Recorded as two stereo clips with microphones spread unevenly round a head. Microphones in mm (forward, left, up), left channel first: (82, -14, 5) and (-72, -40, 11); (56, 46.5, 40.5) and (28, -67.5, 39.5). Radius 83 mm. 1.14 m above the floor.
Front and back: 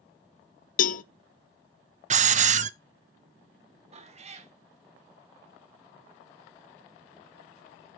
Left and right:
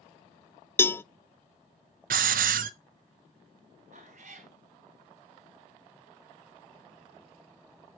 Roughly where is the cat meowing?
Behind right.